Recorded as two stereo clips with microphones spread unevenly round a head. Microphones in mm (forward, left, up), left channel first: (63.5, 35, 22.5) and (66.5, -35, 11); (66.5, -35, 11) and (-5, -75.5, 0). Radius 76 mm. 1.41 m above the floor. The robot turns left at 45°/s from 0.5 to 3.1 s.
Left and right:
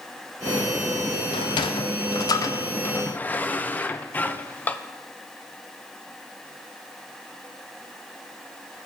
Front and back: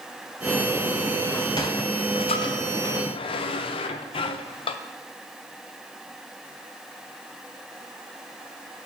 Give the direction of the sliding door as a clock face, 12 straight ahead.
8 o'clock.